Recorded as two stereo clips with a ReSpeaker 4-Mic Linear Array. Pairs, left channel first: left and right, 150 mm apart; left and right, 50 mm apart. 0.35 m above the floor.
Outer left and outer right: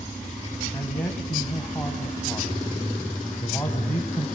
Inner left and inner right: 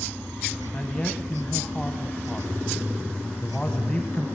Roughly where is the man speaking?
Centre.